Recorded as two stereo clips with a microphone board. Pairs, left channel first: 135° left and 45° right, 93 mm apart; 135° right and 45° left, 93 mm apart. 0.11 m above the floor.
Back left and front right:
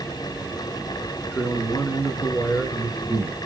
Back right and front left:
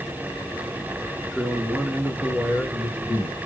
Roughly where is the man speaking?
Behind left.